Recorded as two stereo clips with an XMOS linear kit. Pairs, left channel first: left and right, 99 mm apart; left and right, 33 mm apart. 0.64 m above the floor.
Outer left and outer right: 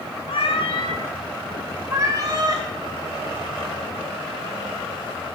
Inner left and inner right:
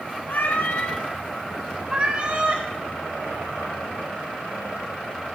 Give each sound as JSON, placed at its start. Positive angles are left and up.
{"t": 0.3, "sound": "a cat meowing", "side_deg": 70, "distance_m": 1.4}